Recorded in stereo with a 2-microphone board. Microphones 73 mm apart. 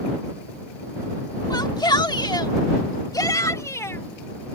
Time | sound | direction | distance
1.5 | a shout | 65° left (ahead or behind) | ?